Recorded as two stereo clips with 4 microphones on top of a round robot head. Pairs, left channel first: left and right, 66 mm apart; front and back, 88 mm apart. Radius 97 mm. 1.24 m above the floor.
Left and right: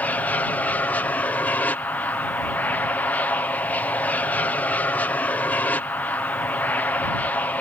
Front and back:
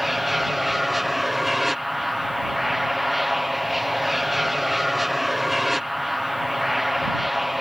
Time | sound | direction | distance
0.0 | an aircraft | 95° left | ?